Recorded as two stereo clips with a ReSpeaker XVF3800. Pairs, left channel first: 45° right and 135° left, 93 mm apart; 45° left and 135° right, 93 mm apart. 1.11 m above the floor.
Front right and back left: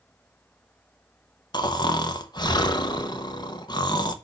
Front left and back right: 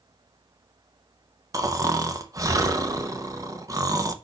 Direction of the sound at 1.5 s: 85° right.